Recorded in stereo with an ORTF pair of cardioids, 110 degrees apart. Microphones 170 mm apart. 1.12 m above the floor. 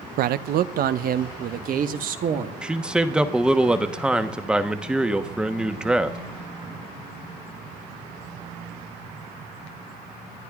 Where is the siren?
No siren in this recording.